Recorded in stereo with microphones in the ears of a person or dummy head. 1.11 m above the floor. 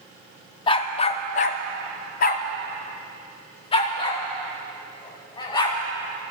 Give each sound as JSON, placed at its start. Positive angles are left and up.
{"t": 0.7, "sound": "a dog barking", "side_deg": 30, "distance_m": 0.8}